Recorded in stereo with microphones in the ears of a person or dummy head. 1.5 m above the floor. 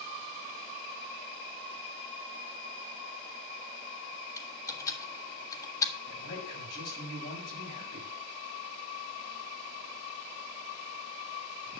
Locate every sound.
4.4 s typing on a keyboard: 20° left (ahead or behind), 1.6 m
6.0 s a man speaking: 55° left (ahead or behind), 7 m